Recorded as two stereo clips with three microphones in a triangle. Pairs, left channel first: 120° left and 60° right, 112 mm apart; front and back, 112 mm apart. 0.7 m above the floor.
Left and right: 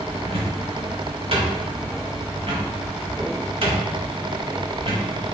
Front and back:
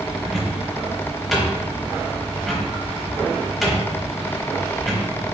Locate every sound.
0.2 s a cupboard door: 90° right, 1.2 m